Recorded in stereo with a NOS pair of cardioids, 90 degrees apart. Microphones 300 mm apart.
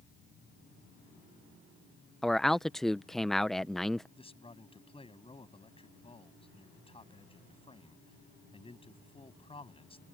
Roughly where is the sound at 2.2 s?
Ahead.